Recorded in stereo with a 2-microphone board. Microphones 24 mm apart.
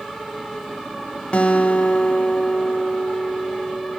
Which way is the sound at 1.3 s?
60° left (ahead or behind).